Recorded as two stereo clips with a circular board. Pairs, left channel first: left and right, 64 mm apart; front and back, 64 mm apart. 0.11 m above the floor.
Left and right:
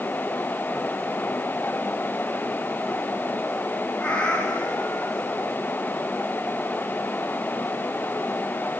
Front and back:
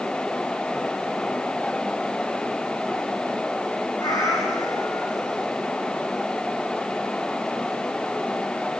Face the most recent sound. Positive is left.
turn(degrees=20)